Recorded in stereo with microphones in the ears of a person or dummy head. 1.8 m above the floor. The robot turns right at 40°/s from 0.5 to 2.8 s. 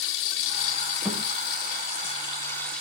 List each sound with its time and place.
0.0 s running water: 80° left, 2 m; by 2.8 s 170° left, 2 m
1.1 s a thud: 5° right (ahead or behind), 5 m; by 1.2 s centre (ahead or behind), 5 m